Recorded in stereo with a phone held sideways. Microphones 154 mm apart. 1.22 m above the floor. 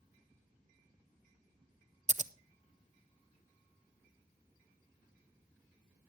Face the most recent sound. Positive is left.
turn(degrees=-50)  # may be behind; listen again after turning